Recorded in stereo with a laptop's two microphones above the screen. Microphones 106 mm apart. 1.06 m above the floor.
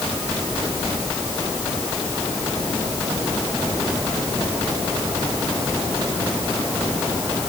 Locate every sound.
Only background noise.